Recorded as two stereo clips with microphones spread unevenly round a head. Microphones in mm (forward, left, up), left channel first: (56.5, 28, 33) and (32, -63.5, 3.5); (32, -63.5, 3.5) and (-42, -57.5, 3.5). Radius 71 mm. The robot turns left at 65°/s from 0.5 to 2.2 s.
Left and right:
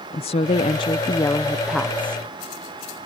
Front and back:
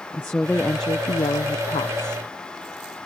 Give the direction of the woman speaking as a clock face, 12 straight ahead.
10 o'clock.